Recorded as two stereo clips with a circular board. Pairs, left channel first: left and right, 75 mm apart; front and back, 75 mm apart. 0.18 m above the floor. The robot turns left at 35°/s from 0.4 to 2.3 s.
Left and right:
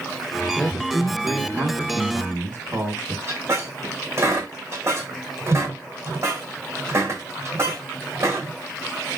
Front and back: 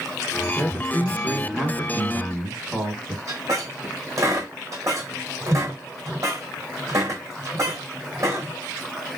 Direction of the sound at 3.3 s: 140° right.